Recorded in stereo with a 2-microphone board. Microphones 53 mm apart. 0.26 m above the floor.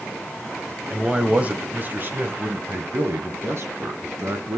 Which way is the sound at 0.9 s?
15° right (ahead or behind).